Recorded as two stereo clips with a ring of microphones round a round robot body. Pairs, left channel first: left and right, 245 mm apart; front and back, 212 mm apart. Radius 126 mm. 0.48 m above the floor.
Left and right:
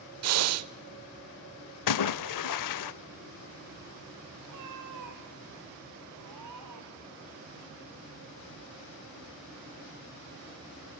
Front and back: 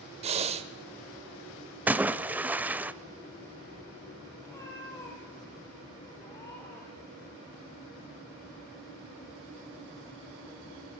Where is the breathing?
115° right, 0.7 m.